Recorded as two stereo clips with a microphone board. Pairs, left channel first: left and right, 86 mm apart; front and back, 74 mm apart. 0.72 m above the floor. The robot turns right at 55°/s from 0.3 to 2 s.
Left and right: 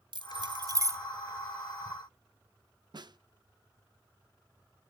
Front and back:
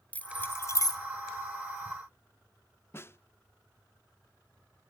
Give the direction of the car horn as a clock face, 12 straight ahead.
I don't hear a car horn.